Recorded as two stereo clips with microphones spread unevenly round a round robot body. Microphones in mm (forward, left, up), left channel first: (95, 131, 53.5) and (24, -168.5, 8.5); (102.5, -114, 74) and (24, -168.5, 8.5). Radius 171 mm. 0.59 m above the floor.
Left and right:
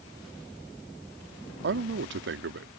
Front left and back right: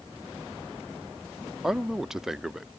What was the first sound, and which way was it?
A man speaking, 110° right.